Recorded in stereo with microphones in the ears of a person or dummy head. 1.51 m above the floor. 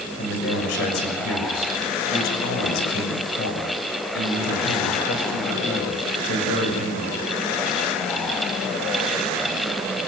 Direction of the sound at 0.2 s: 75° left (ahead or behind).